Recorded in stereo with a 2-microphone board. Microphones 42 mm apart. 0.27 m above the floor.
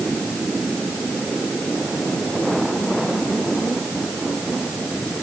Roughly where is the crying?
I don't hear crying.